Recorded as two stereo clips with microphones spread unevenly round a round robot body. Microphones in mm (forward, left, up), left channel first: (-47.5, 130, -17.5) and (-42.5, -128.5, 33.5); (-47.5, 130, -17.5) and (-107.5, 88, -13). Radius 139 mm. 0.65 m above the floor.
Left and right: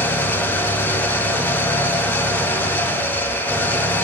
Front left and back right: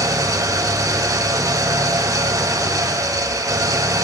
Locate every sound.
0.0 s an engine running: 175° left, 1.6 m